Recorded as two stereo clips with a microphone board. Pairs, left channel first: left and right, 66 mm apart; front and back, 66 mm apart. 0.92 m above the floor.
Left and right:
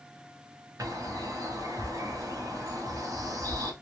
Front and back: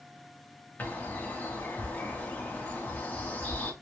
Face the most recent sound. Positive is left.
turn(degrees=-65)